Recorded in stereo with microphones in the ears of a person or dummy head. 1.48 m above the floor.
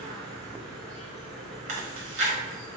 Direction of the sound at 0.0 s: 5° left (ahead or behind).